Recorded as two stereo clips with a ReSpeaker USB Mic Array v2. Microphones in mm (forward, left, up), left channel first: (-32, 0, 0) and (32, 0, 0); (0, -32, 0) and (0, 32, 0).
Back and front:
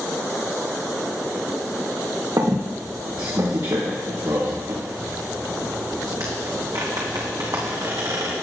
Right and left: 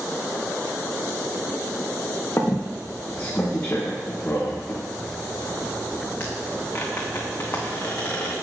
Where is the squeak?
30° right, 2.5 m.